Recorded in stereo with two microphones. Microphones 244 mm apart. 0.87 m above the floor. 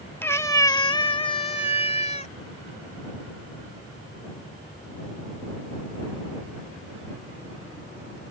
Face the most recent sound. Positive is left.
turn(degrees=25)  # may be behind; listen again after turning